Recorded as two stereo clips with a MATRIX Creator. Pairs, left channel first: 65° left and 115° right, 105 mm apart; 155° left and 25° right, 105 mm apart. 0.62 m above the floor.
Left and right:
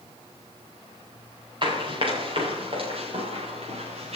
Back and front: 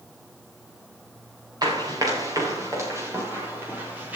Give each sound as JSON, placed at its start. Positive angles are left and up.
{"t": 1.6, "sound": "running footsteps", "azimuth_deg": -70, "distance_m": 6.0}